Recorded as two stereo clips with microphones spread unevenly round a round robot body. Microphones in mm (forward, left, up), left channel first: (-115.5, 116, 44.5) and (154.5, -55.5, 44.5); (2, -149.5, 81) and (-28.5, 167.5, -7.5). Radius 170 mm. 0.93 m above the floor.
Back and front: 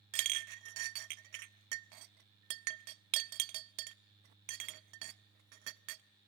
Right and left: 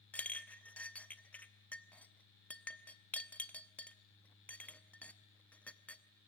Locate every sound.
0.1 s a clink: straight ahead, 0.6 m